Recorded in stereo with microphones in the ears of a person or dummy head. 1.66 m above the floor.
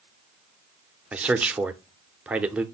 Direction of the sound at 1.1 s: 5° right (ahead or behind).